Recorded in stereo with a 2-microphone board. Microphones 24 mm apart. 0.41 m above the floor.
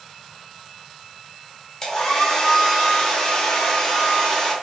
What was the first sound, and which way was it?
A hair dryer, 30° left (ahead or behind).